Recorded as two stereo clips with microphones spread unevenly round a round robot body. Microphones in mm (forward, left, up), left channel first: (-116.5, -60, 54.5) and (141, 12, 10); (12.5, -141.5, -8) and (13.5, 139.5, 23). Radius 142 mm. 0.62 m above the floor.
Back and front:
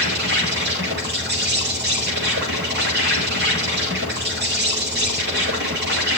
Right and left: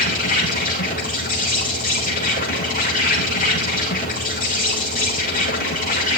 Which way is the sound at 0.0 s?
30° right.